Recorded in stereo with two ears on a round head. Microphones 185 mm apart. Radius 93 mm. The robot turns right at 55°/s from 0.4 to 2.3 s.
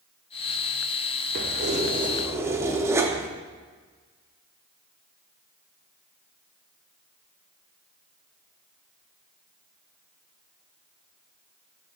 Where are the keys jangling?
70° right, 0.5 m; by 3.3 s 20° right, 0.5 m.